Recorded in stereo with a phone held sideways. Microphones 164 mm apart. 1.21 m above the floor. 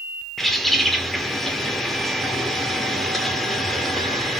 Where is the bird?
Centre (ahead or behind), 1.4 m.